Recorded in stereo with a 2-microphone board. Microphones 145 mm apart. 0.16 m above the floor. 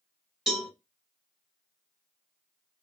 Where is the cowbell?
5° right (ahead or behind), 1.4 m.